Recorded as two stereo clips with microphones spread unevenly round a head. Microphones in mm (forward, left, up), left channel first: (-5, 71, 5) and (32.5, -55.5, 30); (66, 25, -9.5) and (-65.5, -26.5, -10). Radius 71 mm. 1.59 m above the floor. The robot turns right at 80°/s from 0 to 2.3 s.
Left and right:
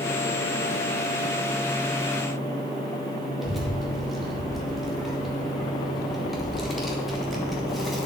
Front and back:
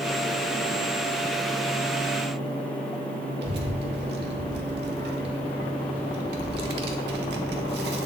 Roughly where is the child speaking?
Behind.